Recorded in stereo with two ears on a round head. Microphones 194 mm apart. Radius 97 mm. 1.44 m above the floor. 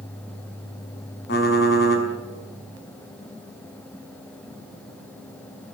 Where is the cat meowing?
I don't hear a cat meowing.